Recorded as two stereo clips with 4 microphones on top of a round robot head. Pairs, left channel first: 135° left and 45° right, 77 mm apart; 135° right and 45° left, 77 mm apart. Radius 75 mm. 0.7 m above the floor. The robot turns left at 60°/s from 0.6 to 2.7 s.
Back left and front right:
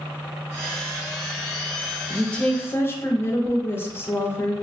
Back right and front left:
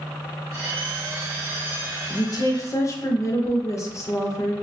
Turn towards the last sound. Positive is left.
turn(degrees=-170)